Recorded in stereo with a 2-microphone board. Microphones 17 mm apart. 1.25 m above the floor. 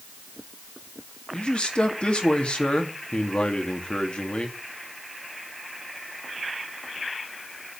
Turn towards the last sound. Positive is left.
turn(degrees=80)